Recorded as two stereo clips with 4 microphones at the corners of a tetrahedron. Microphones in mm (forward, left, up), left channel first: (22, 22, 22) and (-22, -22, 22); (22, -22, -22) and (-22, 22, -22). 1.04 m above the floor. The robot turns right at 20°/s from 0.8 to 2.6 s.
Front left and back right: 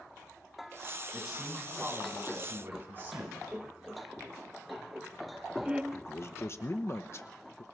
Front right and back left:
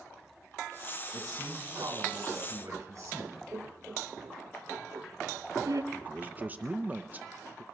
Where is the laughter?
155° left, 0.8 m.